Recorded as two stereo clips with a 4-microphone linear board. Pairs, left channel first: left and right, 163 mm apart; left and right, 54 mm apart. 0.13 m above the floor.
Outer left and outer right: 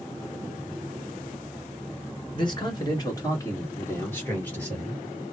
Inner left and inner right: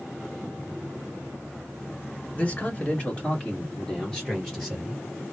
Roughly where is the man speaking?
Left.